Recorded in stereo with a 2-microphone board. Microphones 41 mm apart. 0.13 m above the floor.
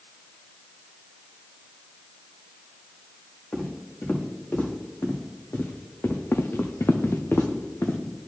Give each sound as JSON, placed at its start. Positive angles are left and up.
{"t": 3.5, "sound": "footsteps", "side_deg": 45, "distance_m": 2.5}
{"t": 6.3, "sound": "footsteps", "side_deg": 70, "distance_m": 0.8}